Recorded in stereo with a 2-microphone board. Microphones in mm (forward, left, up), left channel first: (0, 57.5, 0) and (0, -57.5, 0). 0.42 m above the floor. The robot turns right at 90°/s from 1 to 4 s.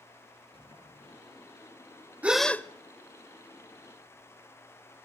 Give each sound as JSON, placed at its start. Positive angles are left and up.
{"t": 0.5, "sound": "a sliding door", "side_deg": 55, "distance_m": 5.5}
{"t": 2.2, "sound": "a gasp", "azimuth_deg": -15, "distance_m": 0.5}